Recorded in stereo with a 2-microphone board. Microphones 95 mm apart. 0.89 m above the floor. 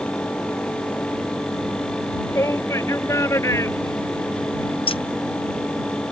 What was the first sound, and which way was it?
A shout, 30° left (ahead or behind).